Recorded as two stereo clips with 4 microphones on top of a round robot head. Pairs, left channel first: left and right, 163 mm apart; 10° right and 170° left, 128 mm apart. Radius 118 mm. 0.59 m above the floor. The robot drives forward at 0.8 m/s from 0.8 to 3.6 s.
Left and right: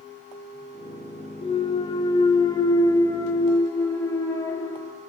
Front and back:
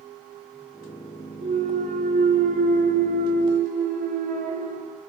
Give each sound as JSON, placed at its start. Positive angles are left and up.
{"t": 1.4, "sound": "a clunk", "azimuth_deg": 145, "distance_m": 1.8}